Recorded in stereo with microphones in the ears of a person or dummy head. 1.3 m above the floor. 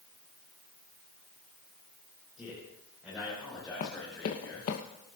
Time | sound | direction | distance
2.4 | a man speaking | 5° right (ahead or behind) | 4.5 m
3.8 | running footsteps | 50° left (ahead or behind) | 2.5 m